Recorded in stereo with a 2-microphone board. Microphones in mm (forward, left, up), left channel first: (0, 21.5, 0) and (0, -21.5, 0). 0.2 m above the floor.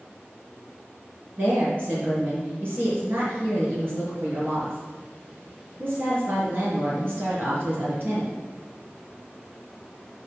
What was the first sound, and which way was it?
A woman speaking, 55° right (ahead or behind).